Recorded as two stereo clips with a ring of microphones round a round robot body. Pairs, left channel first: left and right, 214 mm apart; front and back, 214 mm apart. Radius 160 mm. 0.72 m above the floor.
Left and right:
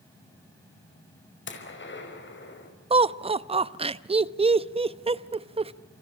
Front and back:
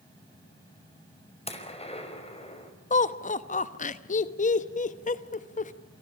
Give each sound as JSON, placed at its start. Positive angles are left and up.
{"t": 1.5, "sound": "a gunshot", "azimuth_deg": 60, "distance_m": 5.0}
{"t": 2.9, "sound": "laughter", "azimuth_deg": -35, "distance_m": 1.0}